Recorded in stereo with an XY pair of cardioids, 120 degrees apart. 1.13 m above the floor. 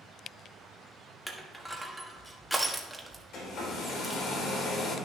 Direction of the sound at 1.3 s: Straight ahead.